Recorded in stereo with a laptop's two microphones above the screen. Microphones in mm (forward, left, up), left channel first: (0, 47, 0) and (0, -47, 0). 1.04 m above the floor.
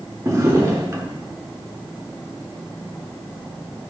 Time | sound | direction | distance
0.2 | a drawer | 35° right (ahead or behind) | 1.3 m